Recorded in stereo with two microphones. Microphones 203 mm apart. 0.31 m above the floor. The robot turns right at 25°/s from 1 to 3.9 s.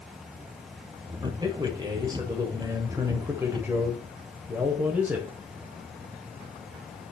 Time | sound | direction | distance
1.2 | a man speaking | 20° right (ahead or behind) | 1.2 m